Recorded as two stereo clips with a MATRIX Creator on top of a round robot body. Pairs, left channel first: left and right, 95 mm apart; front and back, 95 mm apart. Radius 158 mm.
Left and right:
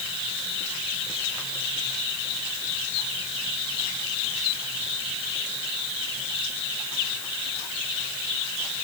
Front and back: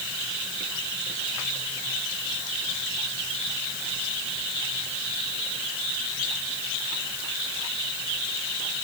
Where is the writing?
I don't hear writing.